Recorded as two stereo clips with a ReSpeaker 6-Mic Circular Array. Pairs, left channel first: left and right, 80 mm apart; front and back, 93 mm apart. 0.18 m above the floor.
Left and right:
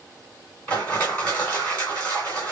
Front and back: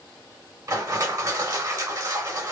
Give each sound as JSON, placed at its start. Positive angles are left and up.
{"t": 0.7, "sound": "crushing", "azimuth_deg": 155, "distance_m": 2.0}